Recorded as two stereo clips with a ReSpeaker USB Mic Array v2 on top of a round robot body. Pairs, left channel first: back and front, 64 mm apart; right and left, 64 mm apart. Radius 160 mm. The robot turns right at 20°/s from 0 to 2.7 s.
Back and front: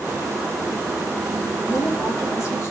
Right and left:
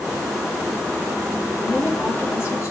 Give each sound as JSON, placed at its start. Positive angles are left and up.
{"t": 1.6, "sound": "a woman speaking", "azimuth_deg": -155, "distance_m": 3.5}